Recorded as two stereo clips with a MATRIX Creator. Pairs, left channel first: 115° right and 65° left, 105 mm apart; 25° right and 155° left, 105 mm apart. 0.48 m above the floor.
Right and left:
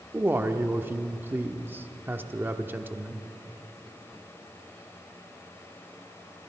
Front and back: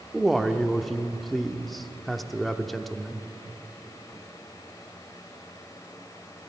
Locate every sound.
0.1 s a man speaking: 65° left, 0.7 m